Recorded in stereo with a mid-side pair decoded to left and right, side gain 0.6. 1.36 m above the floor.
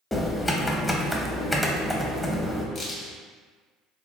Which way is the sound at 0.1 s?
10° left.